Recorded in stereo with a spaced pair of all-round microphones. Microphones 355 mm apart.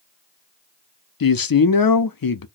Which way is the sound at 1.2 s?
70° left (ahead or behind).